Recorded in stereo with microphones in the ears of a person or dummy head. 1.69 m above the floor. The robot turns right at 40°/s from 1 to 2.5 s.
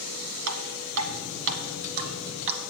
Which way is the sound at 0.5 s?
85° right.